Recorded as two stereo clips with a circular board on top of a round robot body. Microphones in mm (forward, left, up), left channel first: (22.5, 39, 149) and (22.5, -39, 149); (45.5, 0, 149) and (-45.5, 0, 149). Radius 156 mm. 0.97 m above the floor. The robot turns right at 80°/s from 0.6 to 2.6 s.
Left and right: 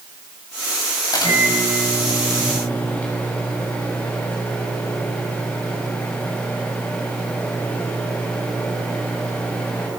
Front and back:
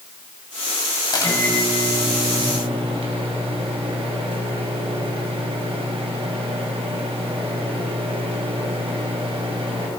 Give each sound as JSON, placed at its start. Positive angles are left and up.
{"t": 1.1, "sound": "a microwave", "azimuth_deg": 40, "distance_m": 5.0}